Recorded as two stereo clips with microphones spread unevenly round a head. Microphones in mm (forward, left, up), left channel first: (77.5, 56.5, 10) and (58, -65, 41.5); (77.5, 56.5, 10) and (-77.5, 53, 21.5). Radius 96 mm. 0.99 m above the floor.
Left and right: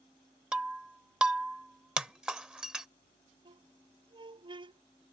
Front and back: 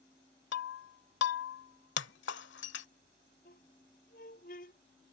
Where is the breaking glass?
20° right.